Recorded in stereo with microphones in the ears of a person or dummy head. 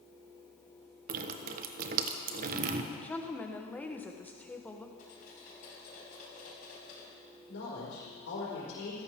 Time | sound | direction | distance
1.1 | dripping | 45° right (ahead or behind) | 1.0 m
2.9 | a woman speaking | 10° left (ahead or behind) | 1.0 m
5.0 | cutlery clinking | 45° left (ahead or behind) | 6.5 m
7.5 | a man speaking | 80° left | 5 m